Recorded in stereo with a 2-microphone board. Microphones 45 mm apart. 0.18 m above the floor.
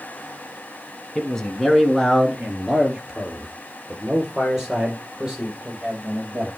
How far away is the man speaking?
About 1.4 m.